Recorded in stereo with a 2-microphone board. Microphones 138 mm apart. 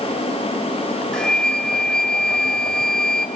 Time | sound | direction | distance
1.1 | a flute | 5° left (ahead or behind) | 0.7 m